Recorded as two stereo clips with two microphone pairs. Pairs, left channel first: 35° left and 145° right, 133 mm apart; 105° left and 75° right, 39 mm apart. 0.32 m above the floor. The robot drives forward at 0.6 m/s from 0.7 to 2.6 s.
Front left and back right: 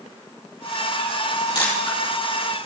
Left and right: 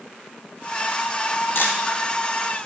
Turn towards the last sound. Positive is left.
turn(degrees=105)